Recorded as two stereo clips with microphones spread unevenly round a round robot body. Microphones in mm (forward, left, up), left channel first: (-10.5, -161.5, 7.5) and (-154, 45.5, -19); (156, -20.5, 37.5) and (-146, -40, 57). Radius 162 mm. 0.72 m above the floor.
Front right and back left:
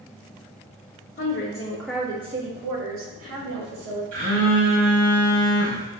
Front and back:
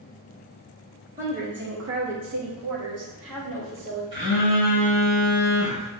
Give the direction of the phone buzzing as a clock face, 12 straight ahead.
8 o'clock.